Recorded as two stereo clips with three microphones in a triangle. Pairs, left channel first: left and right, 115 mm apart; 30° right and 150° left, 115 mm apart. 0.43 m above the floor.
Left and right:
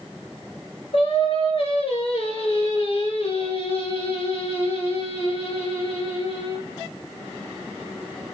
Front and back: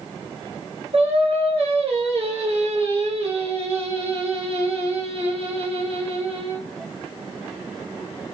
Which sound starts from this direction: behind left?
Singing, at 0.9 s.